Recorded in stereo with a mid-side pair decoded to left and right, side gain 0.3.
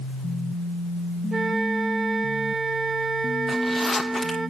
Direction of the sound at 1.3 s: 50° right.